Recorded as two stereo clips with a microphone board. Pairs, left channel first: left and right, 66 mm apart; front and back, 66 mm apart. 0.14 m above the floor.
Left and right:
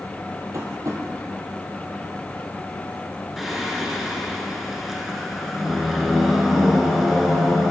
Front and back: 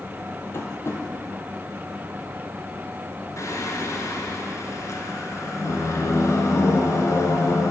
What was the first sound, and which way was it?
Tapping, 50° right.